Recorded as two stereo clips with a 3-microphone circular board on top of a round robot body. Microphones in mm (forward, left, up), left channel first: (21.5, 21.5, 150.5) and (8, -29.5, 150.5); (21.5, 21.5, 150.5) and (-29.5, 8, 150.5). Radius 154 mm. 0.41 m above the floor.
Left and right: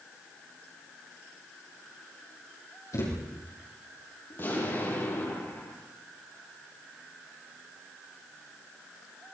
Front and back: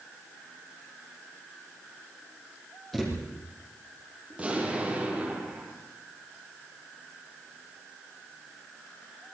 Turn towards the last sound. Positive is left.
turn(degrees=125)